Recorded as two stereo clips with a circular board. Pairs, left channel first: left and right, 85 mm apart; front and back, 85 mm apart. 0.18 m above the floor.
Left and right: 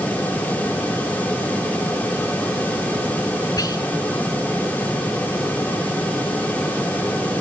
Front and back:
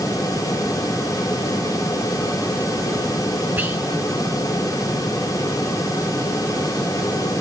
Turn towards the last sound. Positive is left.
turn(degrees=115)